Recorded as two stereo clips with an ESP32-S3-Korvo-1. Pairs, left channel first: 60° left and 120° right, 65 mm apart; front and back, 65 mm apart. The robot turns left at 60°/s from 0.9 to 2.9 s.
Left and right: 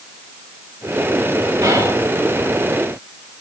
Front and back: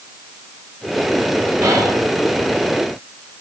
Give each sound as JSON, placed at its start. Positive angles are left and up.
{"t": 1.6, "sound": "whispering", "azimuth_deg": -125, "distance_m": 5.5}